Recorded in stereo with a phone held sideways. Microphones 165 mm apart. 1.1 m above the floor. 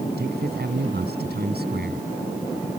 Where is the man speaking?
70° right (ahead or behind).